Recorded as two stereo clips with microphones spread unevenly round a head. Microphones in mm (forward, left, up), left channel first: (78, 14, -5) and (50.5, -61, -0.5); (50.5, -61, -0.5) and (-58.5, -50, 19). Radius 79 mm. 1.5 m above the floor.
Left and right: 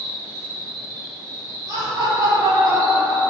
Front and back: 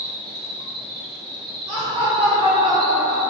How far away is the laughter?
About 1.0 m.